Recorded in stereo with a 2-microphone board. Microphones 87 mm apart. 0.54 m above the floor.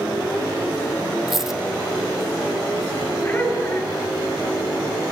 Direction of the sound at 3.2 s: 30° left (ahead or behind).